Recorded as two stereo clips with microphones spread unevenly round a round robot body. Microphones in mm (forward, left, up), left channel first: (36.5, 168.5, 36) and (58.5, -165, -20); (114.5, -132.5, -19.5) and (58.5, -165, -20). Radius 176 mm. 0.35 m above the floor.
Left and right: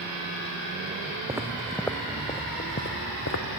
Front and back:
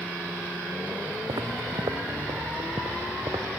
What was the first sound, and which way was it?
Footsteps, 170° right.